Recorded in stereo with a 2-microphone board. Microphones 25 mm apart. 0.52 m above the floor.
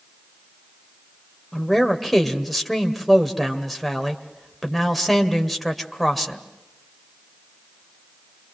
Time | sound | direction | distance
1.5 | a man speaking | centre (ahead or behind) | 2.0 m